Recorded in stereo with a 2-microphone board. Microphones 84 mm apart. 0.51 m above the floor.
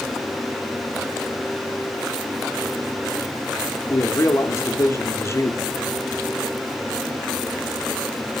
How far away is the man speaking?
About 0.8 m.